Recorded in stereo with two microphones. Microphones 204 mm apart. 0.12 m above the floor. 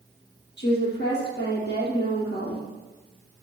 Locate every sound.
0.6 s a woman speaking: 60° left (ahead or behind), 4.5 m